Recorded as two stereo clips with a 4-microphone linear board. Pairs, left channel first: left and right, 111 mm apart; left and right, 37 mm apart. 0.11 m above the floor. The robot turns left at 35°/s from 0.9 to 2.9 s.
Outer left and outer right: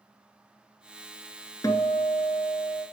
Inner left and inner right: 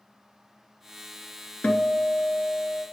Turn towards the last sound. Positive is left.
turn(degrees=50)